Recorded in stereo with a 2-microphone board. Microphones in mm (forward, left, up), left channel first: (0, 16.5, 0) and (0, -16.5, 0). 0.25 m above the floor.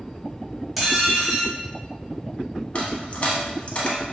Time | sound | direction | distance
0.8 | dishes clattering | 5° right (ahead or behind) | 0.7 m
2.8 | a dropped coin | 40° left (ahead or behind) | 0.5 m